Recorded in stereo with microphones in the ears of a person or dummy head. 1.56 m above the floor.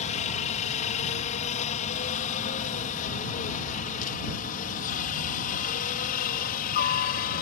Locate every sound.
0.0 s a helicopter: 40° left (ahead or behind); by 7.4 s 50° left (ahead or behind)